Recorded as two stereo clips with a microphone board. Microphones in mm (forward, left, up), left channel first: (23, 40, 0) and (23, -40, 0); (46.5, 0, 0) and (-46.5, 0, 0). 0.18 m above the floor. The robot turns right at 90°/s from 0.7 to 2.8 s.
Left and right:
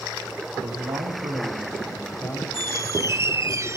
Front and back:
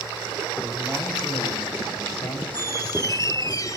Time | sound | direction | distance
0.6 | a man speaking | 110° right | 7 m
2.5 | a squeak | 65° right | 0.6 m